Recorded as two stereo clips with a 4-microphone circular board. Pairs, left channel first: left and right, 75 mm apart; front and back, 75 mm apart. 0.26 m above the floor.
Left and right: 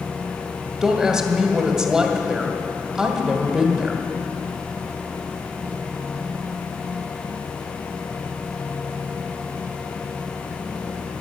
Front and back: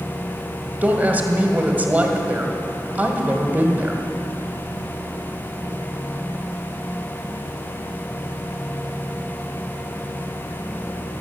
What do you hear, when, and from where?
0.8 s a woman speaking: 160° right, 1.4 m